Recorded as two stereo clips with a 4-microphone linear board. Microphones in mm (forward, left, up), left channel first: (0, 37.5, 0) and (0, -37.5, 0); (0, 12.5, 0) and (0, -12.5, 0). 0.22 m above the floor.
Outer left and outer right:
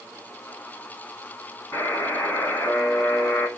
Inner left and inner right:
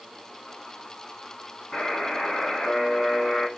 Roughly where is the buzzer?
Left.